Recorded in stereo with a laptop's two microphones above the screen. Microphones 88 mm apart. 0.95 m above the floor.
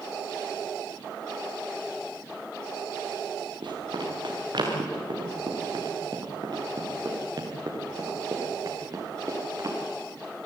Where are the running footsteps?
65° right (ahead or behind), 7.5 m; by 9.8 s 40° right (ahead or behind), 8 m.